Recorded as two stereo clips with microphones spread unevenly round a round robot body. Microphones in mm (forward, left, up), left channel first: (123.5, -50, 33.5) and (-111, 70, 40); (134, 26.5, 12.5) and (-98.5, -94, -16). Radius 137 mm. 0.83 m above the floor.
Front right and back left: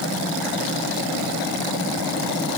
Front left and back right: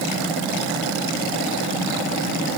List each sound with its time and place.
Only background noise.